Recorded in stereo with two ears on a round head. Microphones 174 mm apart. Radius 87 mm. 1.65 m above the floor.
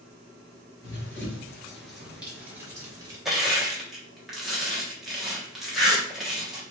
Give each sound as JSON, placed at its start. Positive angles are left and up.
{"t": 0.8, "sound": "running footsteps", "side_deg": 15, "distance_m": 1.8}
{"t": 3.2, "sound": "crushing", "side_deg": 0, "distance_m": 1.2}